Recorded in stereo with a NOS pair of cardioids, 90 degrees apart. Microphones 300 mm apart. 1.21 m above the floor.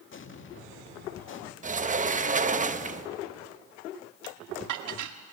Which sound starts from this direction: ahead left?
An explosion, at 0.1 s.